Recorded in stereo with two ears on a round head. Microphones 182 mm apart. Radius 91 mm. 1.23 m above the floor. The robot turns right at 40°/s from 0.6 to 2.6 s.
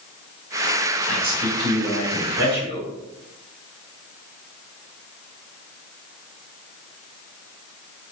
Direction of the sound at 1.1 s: 75° right.